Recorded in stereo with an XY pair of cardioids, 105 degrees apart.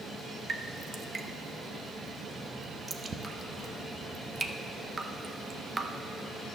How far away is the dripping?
About 0.7 m.